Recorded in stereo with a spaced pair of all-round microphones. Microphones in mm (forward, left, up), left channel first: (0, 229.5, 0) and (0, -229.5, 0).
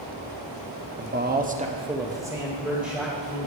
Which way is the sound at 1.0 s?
25° right (ahead or behind).